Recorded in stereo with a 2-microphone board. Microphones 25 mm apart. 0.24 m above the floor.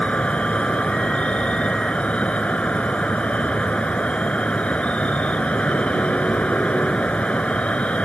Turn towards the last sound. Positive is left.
turn(degrees=60)  # may be behind; listen again after turning